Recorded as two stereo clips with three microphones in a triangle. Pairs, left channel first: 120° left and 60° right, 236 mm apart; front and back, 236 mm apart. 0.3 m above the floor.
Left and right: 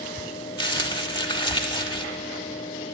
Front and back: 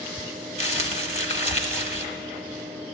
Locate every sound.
0.6 s crumpling: 55° left, 0.9 m